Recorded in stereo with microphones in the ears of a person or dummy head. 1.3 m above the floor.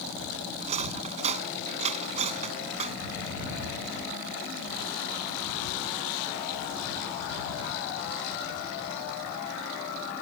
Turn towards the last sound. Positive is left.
turn(degrees=-40)  # may be behind; listen again after turning